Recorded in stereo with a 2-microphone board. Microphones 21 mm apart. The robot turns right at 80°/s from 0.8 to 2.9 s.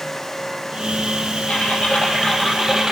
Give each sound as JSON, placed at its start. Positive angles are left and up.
{"t": 1.5, "sound": "typing on a keyboard", "azimuth_deg": 95, "distance_m": 3.5}